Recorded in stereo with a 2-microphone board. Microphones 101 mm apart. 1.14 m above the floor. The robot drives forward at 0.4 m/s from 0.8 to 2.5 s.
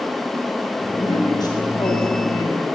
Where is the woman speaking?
45° left (ahead or behind), 3.5 m; by 2.6 s 40° left (ahead or behind), 4 m.